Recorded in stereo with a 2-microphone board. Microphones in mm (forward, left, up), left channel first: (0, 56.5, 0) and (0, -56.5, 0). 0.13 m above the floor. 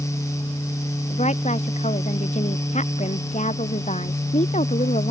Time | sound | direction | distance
1.1 | a woman speaking | 85° left | ?